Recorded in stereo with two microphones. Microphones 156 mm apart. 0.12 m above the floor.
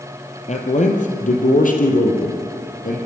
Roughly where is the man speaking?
Left.